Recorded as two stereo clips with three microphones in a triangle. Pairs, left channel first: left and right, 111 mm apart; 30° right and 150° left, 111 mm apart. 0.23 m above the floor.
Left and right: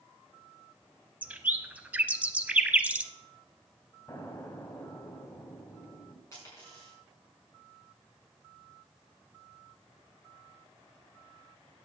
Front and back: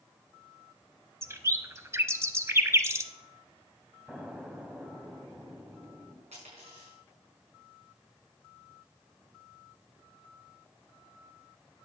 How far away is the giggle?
I don't hear a giggle.